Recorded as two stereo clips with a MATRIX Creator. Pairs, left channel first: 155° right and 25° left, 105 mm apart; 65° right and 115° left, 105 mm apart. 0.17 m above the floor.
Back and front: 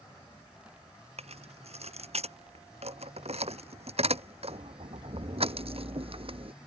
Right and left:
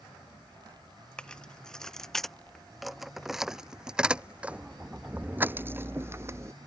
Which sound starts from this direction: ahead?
Keys jangling, at 1.2 s.